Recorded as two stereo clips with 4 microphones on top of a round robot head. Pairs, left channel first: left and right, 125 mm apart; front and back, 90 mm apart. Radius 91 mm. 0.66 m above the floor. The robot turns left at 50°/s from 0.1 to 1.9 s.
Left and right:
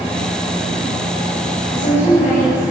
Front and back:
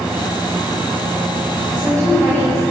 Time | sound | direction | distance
1.7 | a woman speaking | 140° left | 5 m